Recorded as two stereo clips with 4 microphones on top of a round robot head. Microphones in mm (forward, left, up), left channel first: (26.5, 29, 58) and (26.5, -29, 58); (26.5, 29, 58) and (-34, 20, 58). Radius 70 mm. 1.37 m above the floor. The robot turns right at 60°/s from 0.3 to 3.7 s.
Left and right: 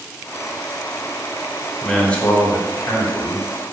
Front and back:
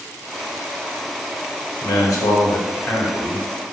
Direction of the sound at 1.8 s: Straight ahead.